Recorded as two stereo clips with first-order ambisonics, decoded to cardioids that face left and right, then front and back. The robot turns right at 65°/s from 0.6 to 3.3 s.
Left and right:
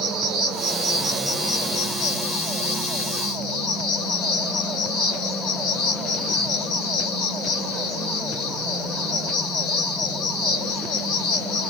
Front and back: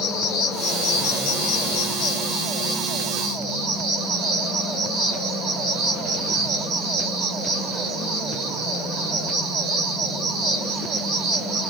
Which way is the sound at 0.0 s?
40° right.